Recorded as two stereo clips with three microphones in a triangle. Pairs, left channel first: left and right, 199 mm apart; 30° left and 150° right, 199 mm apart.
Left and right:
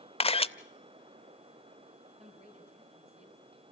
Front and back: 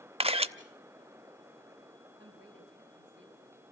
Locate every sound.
0.2 s a camera shutter: 155° left, 0.6 m
2.2 s a man speaking: 150° right, 5.5 m